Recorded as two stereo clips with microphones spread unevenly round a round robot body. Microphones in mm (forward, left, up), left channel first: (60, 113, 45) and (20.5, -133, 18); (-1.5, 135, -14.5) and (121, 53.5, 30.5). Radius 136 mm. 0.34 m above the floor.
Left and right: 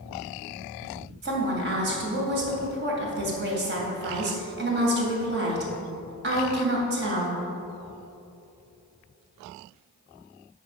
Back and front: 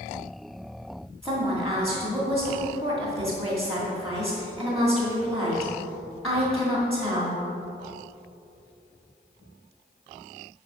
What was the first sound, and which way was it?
A woman speaking, 135° right.